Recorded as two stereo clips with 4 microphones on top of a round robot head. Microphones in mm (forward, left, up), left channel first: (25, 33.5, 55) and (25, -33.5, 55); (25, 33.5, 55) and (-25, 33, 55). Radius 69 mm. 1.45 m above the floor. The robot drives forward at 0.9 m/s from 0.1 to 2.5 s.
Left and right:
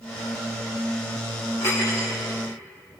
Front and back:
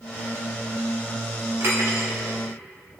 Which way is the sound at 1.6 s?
145° left.